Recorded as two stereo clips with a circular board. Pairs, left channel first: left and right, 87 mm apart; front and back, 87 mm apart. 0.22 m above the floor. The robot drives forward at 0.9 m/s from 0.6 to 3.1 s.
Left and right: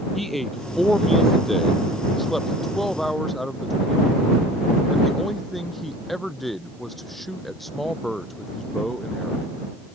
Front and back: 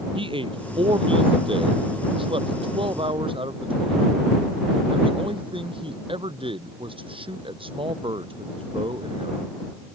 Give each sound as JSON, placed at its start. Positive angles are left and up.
{"t": 0.1, "sound": "a man speaking", "azimuth_deg": 180}